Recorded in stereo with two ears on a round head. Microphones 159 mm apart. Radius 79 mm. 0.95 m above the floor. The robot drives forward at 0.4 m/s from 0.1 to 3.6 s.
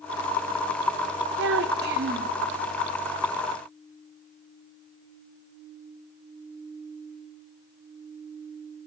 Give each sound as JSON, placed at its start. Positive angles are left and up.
{"t": 1.4, "sound": "a child speaking", "side_deg": -70, "distance_m": 0.7}